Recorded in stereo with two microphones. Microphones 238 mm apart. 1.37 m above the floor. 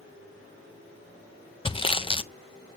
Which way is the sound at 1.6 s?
20° left (ahead or behind).